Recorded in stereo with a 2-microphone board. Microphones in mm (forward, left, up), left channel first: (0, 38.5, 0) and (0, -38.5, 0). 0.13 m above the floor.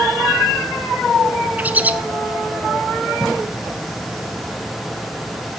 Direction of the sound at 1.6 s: 20° right (ahead or behind).